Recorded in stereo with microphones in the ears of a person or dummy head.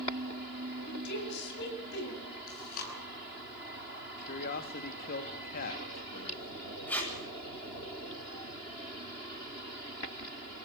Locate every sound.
0.9 s a woman speaking: 65° left (ahead or behind), 9 m
2.5 s chewing: 50° left (ahead or behind), 9.5 m
4.2 s a man speaking: 55° left (ahead or behind), 2.5 m
6.9 s tape being pulled: 10° left (ahead or behind), 9.5 m